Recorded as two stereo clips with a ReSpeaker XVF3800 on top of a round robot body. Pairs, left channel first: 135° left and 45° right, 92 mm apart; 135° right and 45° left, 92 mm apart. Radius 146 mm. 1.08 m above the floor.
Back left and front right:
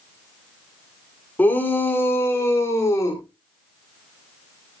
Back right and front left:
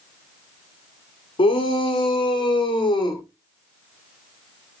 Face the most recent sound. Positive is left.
turn(degrees=-170)